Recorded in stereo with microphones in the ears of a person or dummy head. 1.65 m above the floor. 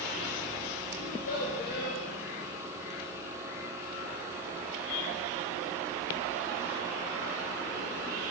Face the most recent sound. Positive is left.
turn(degrees=50)  # may be behind; listen again after turning